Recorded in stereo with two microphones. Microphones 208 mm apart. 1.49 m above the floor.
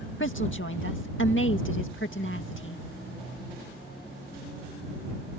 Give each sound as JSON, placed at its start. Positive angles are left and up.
{"t": 0.2, "sound": "a woman speaking", "side_deg": 70}